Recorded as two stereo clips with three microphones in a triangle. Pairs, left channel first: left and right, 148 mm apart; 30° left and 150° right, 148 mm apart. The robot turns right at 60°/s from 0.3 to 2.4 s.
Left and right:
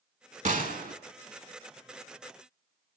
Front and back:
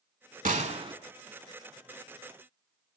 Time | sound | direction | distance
0.5 | a gunshot | 120° right | 0.6 m